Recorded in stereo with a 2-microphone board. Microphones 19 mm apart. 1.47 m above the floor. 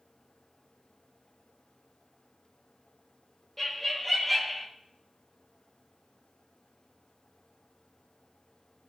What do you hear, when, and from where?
3.6 s laughter: 5° left (ahead or behind), 2.5 m; by 4.7 s 5° right (ahead or behind), 1.5 m